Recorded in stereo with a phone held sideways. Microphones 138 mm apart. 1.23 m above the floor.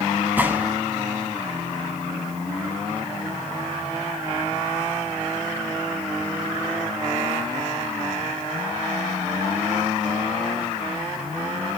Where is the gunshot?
15° right (ahead or behind), 1.9 m.